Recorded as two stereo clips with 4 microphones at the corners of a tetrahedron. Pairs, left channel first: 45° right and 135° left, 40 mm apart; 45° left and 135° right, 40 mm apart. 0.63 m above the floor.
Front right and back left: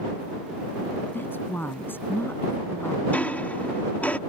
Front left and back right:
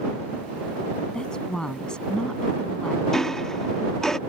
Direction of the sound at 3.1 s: 30° right.